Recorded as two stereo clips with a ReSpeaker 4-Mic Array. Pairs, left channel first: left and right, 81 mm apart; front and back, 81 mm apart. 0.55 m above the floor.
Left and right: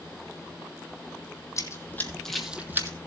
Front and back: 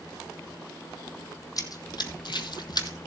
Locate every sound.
1.6 s running footsteps: 40° left, 1.5 m; by 3.0 s 40° right, 1.3 m